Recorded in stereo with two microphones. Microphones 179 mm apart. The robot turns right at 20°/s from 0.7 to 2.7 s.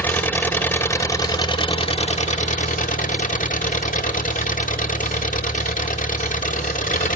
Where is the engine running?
10° left, 1.0 m; by 7.2 s 50° left, 1.0 m.